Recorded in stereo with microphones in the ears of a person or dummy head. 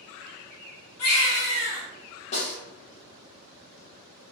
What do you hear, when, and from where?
1.0 s a baby crying: 65° left (ahead or behind), 1.4 m
2.3 s a snare drum: 35° left (ahead or behind), 1.1 m